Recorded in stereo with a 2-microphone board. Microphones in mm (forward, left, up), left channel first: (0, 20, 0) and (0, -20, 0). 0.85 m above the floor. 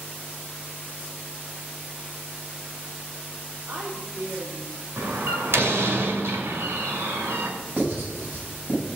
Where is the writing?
55° right (ahead or behind), 6.5 m.